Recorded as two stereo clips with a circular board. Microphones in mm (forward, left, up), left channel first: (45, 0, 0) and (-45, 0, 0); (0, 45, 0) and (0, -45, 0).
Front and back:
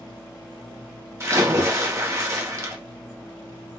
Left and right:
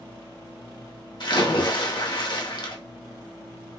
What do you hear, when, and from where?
1.2 s a splash: 125° left, 0.7 m